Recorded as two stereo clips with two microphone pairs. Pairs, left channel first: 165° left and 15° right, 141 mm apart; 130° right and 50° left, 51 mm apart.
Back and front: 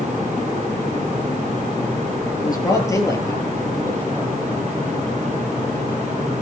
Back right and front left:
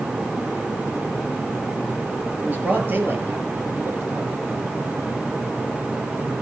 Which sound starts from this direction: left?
A man speaking, at 2.4 s.